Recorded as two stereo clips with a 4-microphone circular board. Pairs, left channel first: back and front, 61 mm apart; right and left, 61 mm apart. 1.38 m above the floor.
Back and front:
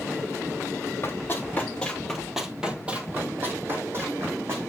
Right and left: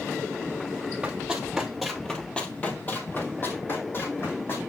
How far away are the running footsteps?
About 1.8 m.